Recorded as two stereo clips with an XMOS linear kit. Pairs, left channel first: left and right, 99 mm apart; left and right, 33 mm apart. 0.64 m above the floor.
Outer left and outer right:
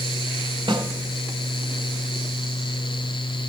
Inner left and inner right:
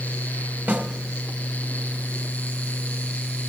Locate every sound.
0.7 s a snare drum: 60° right (ahead or behind), 1.9 m